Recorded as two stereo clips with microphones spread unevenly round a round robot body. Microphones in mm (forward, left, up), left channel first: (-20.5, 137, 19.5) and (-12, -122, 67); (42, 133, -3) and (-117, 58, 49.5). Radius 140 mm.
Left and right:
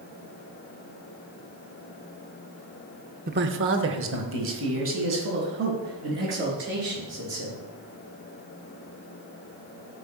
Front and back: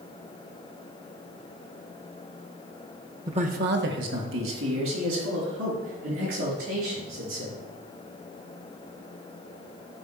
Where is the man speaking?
80° right, 0.8 m; by 7.6 s 135° right, 7 m.